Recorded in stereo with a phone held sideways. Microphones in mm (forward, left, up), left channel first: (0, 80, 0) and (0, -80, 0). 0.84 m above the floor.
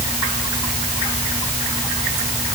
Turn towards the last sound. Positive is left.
No sound to turn to.